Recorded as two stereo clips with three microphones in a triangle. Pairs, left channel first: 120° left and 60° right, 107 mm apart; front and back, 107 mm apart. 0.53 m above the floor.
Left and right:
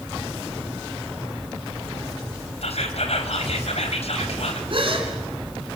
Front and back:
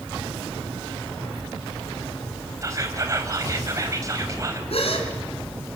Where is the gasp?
25° right, 3.5 m.